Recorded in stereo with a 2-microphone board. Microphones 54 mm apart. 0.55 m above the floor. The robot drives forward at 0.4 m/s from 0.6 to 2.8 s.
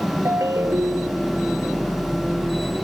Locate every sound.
0.2 s a ringtone: 80° right